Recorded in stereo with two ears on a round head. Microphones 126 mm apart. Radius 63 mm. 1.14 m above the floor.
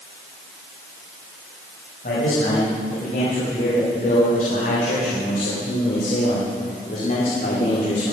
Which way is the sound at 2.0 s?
65° left (ahead or behind).